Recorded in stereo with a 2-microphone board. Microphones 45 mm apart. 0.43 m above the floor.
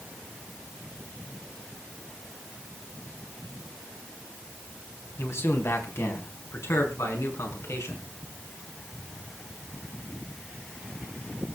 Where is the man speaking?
65° left (ahead or behind), 3.5 m; by 8.1 s 80° left, 6 m.